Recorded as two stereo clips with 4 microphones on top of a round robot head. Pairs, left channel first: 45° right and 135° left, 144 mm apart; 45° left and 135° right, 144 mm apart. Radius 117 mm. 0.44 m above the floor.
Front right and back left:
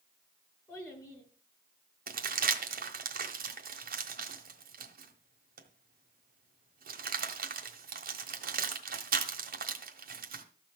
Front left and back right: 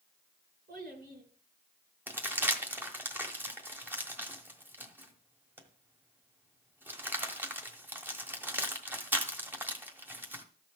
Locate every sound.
0.7 s a child speaking: 115° right, 5.5 m
2.1 s crumpling: 150° left, 1.5 m